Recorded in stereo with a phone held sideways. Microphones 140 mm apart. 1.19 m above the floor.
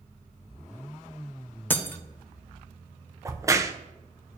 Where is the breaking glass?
15° left (ahead or behind), 0.6 m.